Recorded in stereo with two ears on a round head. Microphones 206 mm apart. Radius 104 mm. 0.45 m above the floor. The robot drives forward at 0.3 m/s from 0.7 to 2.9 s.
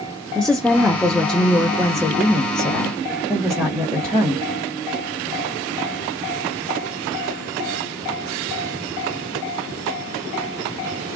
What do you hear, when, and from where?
0.3 s a woman speaking: 5° left (ahead or behind), 0.8 m; by 4.5 s centre (ahead or behind), 1.4 m